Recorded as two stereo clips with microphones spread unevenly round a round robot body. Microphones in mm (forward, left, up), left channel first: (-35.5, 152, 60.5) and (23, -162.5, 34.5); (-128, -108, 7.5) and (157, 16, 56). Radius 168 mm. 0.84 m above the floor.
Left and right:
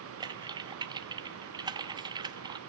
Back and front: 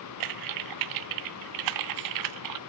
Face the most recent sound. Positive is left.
turn(degrees=0)